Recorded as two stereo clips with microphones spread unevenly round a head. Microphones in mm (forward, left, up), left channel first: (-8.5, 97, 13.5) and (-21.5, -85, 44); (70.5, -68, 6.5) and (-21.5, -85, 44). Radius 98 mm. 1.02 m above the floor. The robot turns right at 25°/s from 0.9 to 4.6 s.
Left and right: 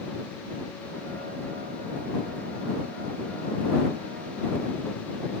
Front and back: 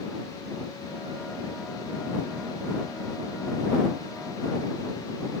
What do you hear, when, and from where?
Only background noise.